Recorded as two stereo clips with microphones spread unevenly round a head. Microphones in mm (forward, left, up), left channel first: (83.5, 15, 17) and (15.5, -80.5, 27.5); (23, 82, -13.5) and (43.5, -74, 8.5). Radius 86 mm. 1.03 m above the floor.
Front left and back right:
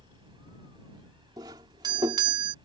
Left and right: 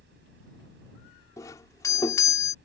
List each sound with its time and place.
0.0 s a fan: 75° right
1.4 s a doorbell: 170° left